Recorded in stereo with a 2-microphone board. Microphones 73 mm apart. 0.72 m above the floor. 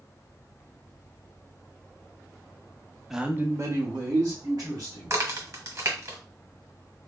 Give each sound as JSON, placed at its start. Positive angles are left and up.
{"t": 3.1, "sound": "a man speaking", "side_deg": -5, "distance_m": 0.5}
{"t": 5.1, "sound": "a crack", "side_deg": -45, "distance_m": 1.2}